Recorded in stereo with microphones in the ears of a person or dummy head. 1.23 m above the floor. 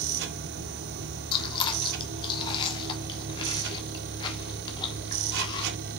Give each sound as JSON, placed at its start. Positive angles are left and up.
{"t": 0.0, "sound": "a machine running", "side_deg": -65, "distance_m": 1.8}
{"t": 1.3, "sound": "chewing", "side_deg": 30, "distance_m": 1.5}